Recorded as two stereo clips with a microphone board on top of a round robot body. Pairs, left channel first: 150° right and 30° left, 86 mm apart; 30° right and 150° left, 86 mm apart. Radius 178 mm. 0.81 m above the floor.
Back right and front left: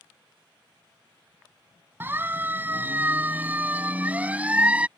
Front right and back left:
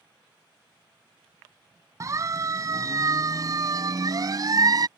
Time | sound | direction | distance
2.0 | a siren | 95° left | ?